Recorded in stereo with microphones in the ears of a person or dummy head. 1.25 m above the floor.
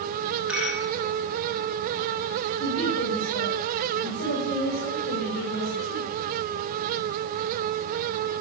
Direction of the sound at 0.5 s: 10° right (ahead or behind).